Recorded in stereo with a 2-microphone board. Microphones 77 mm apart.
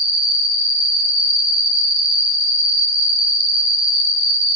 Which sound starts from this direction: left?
An insect, at 0.0 s.